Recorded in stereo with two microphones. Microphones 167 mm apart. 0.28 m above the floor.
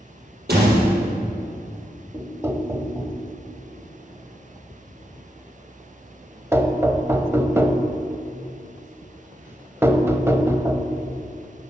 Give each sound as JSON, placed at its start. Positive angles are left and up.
{"t": 0.5, "sound": "a door slam", "side_deg": -75, "distance_m": 5.5}
{"t": 2.1, "sound": "knocking", "side_deg": -15, "distance_m": 0.8}